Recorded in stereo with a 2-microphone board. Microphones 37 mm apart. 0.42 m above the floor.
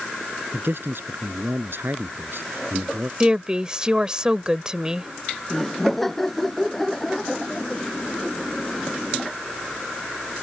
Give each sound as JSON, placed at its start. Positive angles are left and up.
{"t": 0.5, "sound": "a man speaking", "side_deg": -75}
{"t": 3.2, "sound": "a woman speaking", "side_deg": -25}
{"t": 5.5, "sound": "laughter", "side_deg": 5}